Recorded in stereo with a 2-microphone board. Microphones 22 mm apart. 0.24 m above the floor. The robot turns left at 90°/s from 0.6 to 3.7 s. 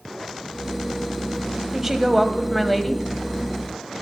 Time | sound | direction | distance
1.7 | a woman speaking | 20° right (ahead or behind) | 1.2 m